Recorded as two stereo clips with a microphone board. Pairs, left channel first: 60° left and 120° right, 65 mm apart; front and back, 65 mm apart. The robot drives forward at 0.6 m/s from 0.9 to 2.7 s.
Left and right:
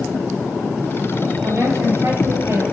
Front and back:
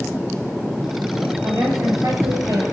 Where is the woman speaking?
155° right, 9 m.